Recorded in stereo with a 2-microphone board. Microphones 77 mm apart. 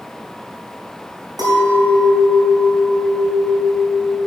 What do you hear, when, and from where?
1.4 s a clink: 55° right (ahead or behind), 4.5 m